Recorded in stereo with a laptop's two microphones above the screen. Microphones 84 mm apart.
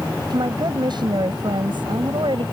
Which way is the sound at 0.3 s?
55° right (ahead or behind).